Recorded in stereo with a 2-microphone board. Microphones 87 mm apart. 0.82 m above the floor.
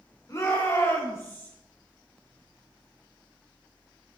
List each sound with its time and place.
0.3 s a shout: 40° left (ahead or behind), 3.5 m; by 1.5 s 30° left (ahead or behind), 4 m